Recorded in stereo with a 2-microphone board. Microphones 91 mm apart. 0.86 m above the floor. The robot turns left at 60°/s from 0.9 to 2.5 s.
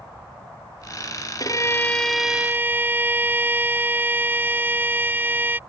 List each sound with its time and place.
1.4 s a violin: 45° left; by 5.6 s 20° right